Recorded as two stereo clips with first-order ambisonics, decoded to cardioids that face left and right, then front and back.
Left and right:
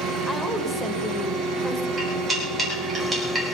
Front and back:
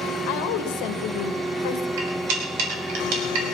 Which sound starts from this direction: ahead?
A woman speaking, at 0.3 s.